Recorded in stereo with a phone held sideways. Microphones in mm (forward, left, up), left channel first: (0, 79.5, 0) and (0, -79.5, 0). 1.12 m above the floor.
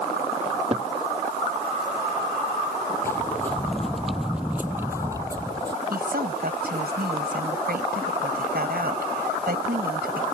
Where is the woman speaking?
75° right (ahead or behind).